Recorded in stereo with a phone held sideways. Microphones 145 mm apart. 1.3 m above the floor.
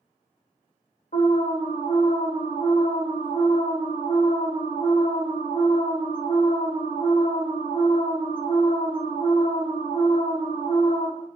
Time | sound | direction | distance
1.1 | an alarm | 70° left (ahead or behind) | 1.3 m